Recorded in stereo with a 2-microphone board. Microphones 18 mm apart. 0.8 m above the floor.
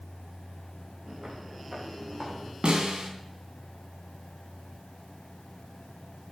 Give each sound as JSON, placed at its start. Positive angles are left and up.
{"t": 1.1, "sound": "footsteps", "side_deg": -50, "distance_m": 4.5}
{"t": 2.6, "sound": "a snare drum", "side_deg": -60, "distance_m": 3.0}